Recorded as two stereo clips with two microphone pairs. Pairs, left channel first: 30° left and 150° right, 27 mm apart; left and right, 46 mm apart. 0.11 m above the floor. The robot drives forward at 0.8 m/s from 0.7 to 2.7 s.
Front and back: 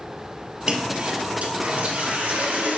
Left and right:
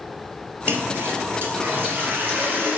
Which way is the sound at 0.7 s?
95° right.